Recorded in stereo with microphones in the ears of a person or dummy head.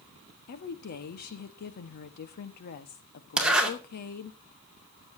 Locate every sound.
0.5 s a woman speaking: 45° left (ahead or behind), 1.4 m
3.4 s a zipper: centre (ahead or behind), 2.5 m